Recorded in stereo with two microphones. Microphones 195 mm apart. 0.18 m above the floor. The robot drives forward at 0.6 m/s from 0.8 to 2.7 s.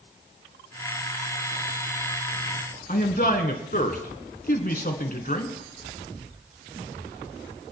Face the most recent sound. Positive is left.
turn(degrees=45)  # may be behind; listen again after turning